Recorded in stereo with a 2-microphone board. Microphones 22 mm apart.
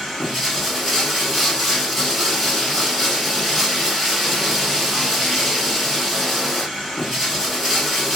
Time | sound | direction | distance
0.0 | running water | 5° left (ahead or behind) | 2 m